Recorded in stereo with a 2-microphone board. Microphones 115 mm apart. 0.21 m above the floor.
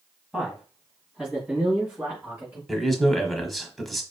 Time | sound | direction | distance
0.3 | a man speaking | centre (ahead or behind) | 1.7 m
2.7 | a man speaking | centre (ahead or behind) | 1.1 m